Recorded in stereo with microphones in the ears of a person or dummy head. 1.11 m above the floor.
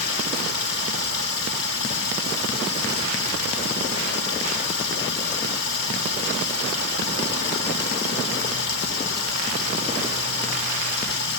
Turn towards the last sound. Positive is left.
turn(degrees=65)  # may be behind; listen again after turning